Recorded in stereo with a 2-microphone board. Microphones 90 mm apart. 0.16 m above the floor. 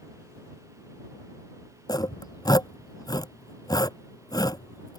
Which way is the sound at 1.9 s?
45° left (ahead or behind).